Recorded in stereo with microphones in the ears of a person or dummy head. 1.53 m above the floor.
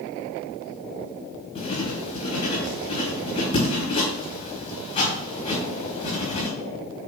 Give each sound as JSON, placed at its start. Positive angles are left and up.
{"t": 1.6, "sound": "writing", "side_deg": 40, "distance_m": 4.5}